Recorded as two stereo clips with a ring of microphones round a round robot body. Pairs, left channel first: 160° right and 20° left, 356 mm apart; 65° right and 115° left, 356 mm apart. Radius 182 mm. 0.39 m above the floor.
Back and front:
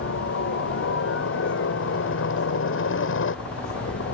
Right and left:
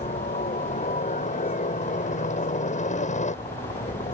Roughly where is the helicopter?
Behind right.